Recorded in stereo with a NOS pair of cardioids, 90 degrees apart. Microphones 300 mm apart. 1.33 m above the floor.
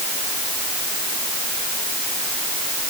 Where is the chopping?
No chopping in this recording.